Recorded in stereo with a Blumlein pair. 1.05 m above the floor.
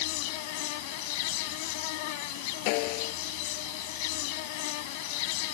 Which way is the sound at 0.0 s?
45° left.